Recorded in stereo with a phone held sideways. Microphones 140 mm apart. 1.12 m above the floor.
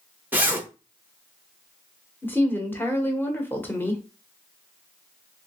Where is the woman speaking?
15° left (ahead or behind), 0.9 m.